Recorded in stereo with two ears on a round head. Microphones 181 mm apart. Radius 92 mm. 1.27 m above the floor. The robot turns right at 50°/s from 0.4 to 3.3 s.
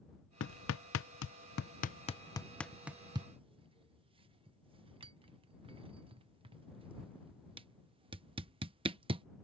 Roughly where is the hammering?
Left.